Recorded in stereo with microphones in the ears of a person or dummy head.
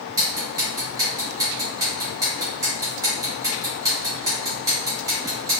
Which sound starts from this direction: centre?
Ticking, at 0.2 s.